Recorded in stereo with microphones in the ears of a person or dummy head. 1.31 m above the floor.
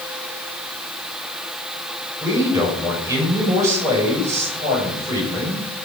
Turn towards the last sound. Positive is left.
turn(degrees=-20)  # may be behind; listen again after turning